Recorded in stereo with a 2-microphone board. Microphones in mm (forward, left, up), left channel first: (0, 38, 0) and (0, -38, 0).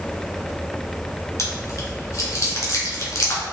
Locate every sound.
1.4 s chewing: 40° left (ahead or behind), 1.5 m